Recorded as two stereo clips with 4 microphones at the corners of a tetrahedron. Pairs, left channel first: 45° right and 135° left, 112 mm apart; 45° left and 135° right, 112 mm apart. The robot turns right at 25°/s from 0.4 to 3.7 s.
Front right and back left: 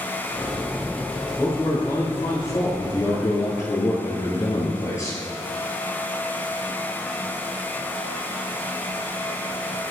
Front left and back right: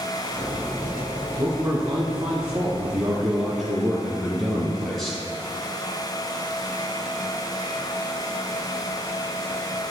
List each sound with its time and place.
1.4 s a man speaking: 100° right, 1.3 m; by 5.2 s 45° right, 1.3 m